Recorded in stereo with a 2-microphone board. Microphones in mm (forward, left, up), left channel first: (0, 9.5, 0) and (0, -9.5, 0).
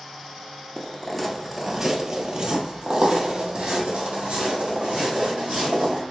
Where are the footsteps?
10° left (ahead or behind), 0.8 m; by 6.0 s 75° right (ahead or behind), 2.5 m.